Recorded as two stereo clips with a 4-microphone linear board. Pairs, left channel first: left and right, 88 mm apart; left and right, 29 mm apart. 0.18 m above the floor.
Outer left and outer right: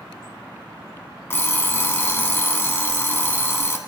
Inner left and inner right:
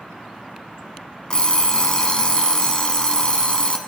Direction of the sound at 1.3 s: 30° left (ahead or behind).